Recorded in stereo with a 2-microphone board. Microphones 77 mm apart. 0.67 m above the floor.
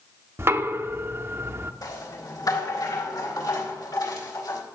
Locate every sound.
0.4 s knocking: 30° right (ahead or behind), 0.7 m
1.8 s a rattle: 60° left (ahead or behind), 4 m